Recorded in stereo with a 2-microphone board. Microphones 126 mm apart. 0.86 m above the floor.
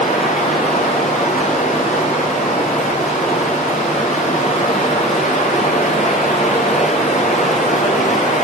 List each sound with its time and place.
0.0 s running water: 85° left, 6.5 m